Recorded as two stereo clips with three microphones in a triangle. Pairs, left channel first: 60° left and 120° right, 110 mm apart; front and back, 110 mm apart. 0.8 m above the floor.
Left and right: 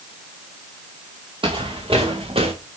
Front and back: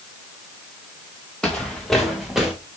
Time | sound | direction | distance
1.4 | footsteps | 80° right | 3 m